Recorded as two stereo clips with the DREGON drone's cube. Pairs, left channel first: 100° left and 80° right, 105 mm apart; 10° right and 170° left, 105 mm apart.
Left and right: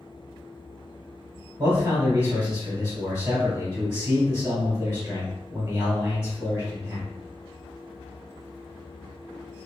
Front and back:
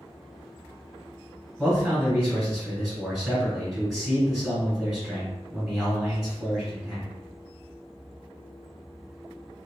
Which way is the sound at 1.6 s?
120° right.